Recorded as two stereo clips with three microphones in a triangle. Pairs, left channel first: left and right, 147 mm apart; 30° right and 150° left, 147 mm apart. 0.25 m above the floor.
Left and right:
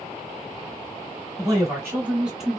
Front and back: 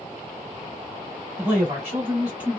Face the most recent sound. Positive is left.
turn(degrees=160)